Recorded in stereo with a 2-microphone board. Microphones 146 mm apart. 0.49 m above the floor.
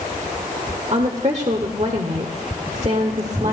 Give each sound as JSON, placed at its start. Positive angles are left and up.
{"t": 0.9, "sound": "a woman speaking", "side_deg": -50, "distance_m": 1.1}